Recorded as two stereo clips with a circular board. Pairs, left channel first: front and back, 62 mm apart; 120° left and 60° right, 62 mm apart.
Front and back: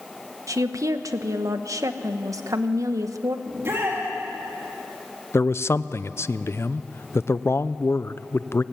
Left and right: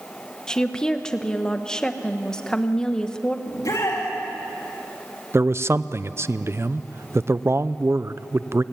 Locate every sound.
0.5 s a woman speaking: 165° right, 1.1 m
3.5 s a shout: 140° left, 3 m
5.3 s a man speaking: 30° right, 0.5 m